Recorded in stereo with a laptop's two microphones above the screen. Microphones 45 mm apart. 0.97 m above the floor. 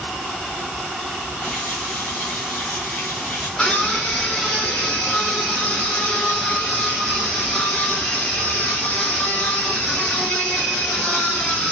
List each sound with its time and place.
1.4 s a running tap: 30° left (ahead or behind), 3 m
3.6 s a scream: 20° left (ahead or behind), 3.5 m